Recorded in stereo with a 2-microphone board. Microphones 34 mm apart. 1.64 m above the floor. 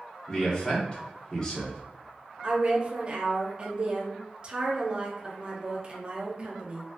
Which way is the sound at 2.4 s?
35° right (ahead or behind).